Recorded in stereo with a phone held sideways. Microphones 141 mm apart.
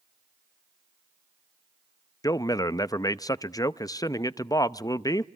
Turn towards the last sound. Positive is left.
turn(degrees=25)  # may be behind; listen again after turning